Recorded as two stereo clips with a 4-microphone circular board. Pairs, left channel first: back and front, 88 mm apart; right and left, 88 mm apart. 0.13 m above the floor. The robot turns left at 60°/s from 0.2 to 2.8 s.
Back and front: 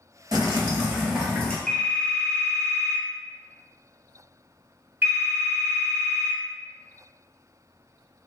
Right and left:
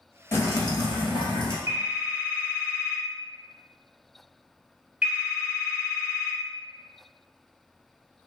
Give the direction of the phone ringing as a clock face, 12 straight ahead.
9 o'clock.